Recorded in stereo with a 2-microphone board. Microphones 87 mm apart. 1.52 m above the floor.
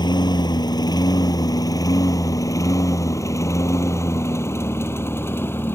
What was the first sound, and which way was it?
A lawn mower, 55° left (ahead or behind).